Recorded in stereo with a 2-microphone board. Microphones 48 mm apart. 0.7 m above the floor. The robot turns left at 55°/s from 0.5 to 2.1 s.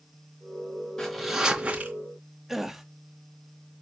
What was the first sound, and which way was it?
A zipper, 15° left.